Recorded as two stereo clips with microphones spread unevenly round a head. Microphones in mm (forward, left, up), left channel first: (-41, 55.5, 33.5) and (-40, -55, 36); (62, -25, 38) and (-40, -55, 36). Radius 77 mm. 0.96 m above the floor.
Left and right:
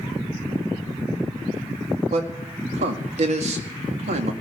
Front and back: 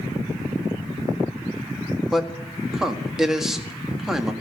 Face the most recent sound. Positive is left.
turn(degrees=-80)